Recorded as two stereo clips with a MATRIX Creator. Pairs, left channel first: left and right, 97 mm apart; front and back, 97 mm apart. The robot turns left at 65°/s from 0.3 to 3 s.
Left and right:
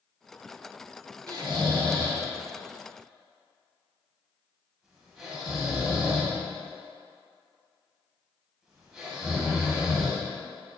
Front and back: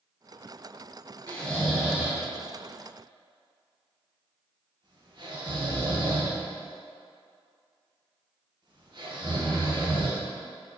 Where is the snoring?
65° right, 0.8 m; by 10.2 s 175° right, 0.8 m.